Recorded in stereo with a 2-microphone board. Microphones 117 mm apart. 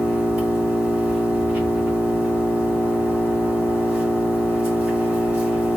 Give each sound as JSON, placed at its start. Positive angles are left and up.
{"t": 0.0, "sound": "an engine running", "side_deg": -10, "distance_m": 2.5}